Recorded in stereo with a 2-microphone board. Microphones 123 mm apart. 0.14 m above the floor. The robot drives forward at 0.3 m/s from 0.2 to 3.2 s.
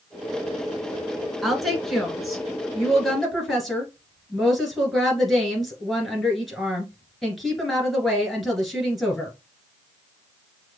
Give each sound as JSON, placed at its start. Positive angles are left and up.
{"t": 1.4, "sound": "a woman speaking", "side_deg": 0, "distance_m": 1.4}